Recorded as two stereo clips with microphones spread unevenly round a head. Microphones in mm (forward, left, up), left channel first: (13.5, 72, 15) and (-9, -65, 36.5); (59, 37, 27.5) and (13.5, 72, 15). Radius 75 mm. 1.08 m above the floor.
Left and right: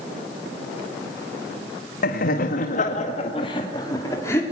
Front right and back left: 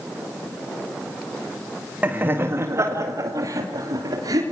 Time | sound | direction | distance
2.0 | laughter | 80° left | 2.0 m